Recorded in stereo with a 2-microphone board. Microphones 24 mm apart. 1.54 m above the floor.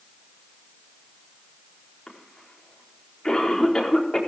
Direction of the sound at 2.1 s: 30° left (ahead or behind).